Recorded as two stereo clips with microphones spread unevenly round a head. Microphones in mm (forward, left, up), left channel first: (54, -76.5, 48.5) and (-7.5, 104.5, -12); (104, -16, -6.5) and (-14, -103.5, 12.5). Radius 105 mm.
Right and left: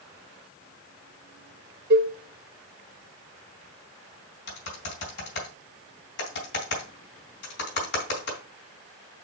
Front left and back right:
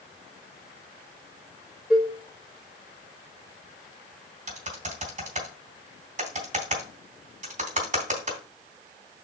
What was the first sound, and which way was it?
A cowbell, 130° left.